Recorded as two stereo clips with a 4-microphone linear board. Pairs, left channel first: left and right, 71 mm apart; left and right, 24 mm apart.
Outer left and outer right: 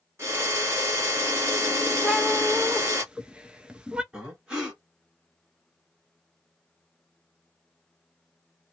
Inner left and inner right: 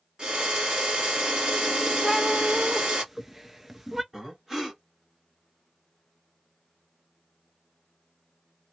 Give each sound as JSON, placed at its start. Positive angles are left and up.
{"t": 0.2, "sound": "a drill", "side_deg": -40, "distance_m": 1.8}
{"t": 2.0, "sound": "a cat meowing", "side_deg": -15, "distance_m": 0.7}
{"t": 4.1, "sound": "breathing", "side_deg": -15, "distance_m": 2.0}